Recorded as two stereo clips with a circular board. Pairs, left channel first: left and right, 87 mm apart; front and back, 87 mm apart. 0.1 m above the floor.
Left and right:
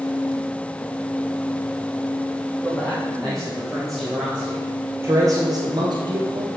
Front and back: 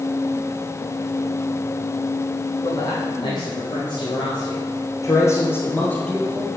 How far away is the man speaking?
About 3.5 m.